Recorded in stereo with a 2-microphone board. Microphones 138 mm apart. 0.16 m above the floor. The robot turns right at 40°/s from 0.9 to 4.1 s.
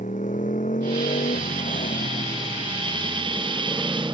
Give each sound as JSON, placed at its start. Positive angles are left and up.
{"t": 0.0, "sound": "a motorcycle", "azimuth_deg": 70}